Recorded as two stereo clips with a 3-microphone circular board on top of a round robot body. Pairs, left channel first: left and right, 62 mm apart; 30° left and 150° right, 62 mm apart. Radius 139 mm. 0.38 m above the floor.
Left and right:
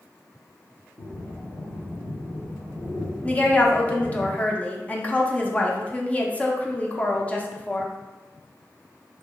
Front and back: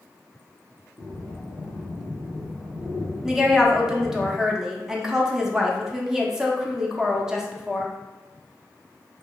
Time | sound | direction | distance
1.0 | breathing | 130° left | 1.5 m
3.2 | a woman speaking | 135° left | 0.9 m